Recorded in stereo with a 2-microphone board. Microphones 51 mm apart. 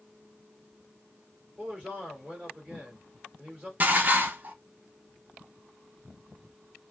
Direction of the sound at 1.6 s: 30° right (ahead or behind).